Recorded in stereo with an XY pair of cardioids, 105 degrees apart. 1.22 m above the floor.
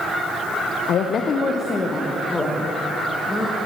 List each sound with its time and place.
0.9 s a woman speaking: 65° left, 0.6 m; by 3.6 s 10° left, 1.8 m